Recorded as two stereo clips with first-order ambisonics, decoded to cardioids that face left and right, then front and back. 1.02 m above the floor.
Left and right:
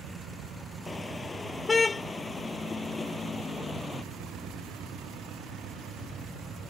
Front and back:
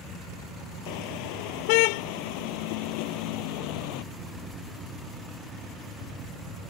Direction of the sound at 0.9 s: 10° left.